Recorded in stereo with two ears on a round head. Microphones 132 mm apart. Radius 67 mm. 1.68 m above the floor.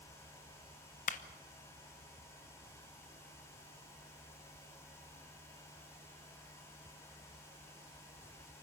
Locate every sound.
1.1 s a clap: 55° left (ahead or behind), 0.9 m